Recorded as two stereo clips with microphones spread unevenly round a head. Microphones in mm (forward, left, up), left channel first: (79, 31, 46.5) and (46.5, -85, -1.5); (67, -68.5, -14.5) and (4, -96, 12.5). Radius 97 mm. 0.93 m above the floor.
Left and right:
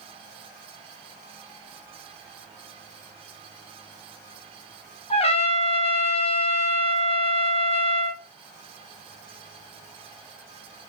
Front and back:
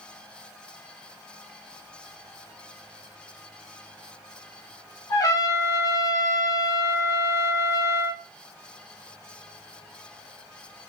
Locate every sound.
5.1 s a trumpet: 25° left, 0.5 m